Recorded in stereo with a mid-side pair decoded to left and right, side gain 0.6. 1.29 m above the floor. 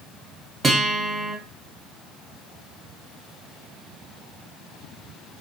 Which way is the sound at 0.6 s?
25° right.